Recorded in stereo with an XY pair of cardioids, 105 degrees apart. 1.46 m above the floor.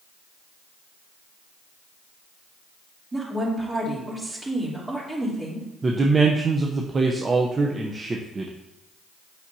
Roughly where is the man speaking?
Ahead right.